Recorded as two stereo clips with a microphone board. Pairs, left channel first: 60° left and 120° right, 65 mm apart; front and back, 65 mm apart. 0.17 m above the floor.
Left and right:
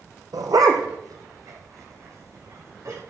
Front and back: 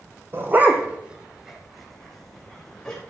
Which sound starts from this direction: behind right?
A dog barking, at 0.3 s.